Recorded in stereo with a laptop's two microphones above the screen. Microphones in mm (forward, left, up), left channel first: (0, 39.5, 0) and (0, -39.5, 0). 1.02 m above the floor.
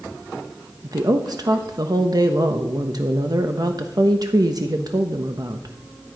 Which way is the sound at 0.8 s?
55° right (ahead or behind).